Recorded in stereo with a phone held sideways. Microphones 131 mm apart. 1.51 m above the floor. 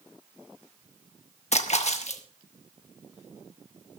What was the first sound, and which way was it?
A splash, 60° left (ahead or behind).